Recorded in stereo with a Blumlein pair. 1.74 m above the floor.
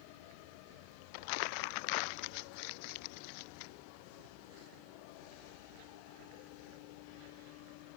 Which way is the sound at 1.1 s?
45° left.